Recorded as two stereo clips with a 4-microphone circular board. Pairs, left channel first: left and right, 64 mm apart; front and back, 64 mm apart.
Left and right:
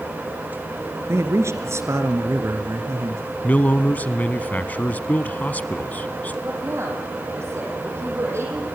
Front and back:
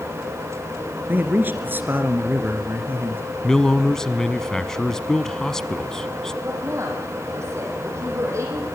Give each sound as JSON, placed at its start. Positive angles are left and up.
{"t": 1.1, "sound": "a man speaking", "azimuth_deg": -125, "distance_m": 2.5}
{"t": 3.4, "sound": "a man speaking", "azimuth_deg": 70, "distance_m": 1.1}
{"t": 6.4, "sound": "a woman speaking", "azimuth_deg": -135, "distance_m": 6.0}